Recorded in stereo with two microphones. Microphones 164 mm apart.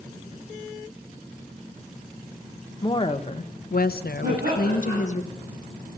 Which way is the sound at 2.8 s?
25° left (ahead or behind).